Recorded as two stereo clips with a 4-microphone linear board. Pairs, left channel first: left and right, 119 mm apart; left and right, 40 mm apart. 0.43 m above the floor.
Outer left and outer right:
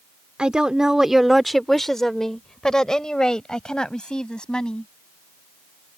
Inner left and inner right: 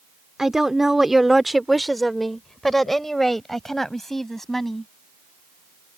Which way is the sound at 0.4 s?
10° right (ahead or behind).